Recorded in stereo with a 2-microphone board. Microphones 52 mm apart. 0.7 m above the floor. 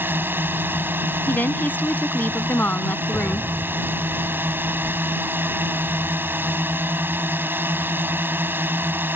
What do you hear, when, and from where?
0.0 s a drone: 35° right (ahead or behind)
1.3 s a woman speaking: 35° left (ahead or behind)
3.1 s an explosion: 70° right (ahead or behind)